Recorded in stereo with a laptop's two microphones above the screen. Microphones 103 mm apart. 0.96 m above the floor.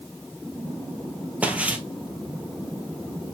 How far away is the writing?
I don't hear writing.